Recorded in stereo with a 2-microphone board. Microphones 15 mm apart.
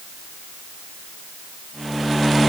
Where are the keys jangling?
I don't hear keys jangling.